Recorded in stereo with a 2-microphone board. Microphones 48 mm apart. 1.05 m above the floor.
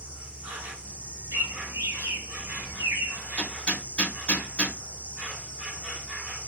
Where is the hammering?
25° left (ahead or behind), 1.0 m.